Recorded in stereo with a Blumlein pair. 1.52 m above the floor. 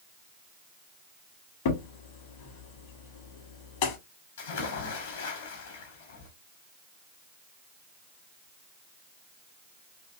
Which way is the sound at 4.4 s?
60° left.